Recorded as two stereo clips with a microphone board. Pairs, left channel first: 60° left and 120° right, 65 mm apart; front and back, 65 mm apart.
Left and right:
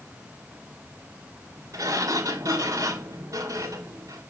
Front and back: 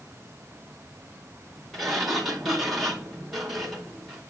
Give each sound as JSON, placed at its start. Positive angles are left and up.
{"t": 1.7, "sound": "a sliding door", "azimuth_deg": -90, "distance_m": 3.0}